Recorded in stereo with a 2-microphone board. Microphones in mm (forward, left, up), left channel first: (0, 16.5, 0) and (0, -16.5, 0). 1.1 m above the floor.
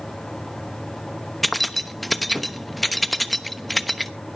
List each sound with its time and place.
1.4 s keys jangling: centre (ahead or behind), 1.0 m